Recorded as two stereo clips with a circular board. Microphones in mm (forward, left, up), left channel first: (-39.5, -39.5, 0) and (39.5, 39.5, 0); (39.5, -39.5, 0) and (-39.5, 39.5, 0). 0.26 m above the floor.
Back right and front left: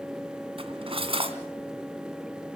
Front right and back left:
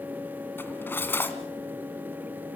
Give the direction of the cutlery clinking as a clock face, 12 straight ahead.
11 o'clock.